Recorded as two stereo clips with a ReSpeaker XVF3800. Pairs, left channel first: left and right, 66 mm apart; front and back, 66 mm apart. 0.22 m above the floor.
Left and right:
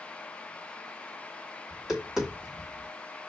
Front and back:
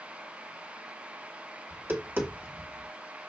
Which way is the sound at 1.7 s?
165° right.